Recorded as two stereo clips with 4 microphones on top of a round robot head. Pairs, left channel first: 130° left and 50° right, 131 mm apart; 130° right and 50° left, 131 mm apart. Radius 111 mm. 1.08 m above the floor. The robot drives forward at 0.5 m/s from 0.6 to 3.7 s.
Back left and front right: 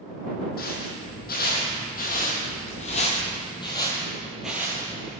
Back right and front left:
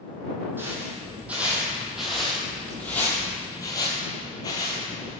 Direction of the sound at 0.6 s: 125° left.